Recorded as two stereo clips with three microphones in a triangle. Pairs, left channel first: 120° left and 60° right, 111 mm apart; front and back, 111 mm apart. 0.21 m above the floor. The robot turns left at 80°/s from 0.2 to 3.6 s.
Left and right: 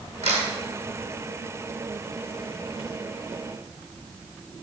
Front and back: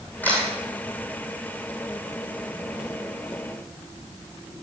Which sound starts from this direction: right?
A camera shutter, at 0.2 s.